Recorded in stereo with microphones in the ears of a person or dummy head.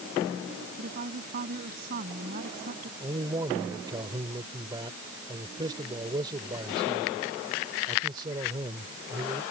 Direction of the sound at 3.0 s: 25° right (ahead or behind).